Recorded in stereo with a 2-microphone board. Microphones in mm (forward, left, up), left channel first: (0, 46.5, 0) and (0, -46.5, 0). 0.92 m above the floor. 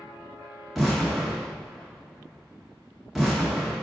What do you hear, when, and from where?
0.8 s an explosion: 5° right (ahead or behind), 0.8 m